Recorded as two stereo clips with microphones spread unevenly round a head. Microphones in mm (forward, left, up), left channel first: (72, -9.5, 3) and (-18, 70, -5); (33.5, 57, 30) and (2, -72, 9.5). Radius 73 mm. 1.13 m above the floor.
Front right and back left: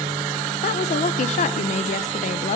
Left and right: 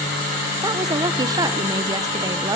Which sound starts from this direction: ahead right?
A woman speaking, at 0.6 s.